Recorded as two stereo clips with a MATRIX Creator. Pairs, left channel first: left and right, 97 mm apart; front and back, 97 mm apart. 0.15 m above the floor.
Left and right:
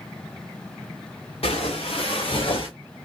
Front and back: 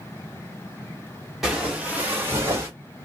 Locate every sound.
1.4 s footsteps: 95° left, 1.5 m; by 2.7 s 120° left, 2.0 m